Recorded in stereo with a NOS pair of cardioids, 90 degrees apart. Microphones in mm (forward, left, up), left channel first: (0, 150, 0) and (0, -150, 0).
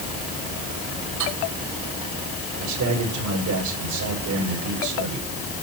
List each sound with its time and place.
1.2 s cutlery clinking: 65° right, 6 m
2.6 s a man speaking: 65° right, 6.5 m